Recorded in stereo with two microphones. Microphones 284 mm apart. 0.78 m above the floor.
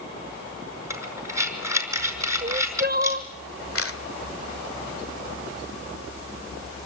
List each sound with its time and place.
0.9 s breathing: 10° right (ahead or behind), 5.5 m
2.4 s crying: 35° right (ahead or behind), 1.1 m
3.8 s a camera shutter: 50° left (ahead or behind), 1.5 m